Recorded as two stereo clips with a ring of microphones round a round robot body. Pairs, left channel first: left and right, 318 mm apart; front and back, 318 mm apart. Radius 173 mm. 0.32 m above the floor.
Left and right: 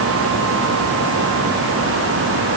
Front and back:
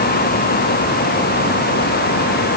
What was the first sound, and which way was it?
Only background noise.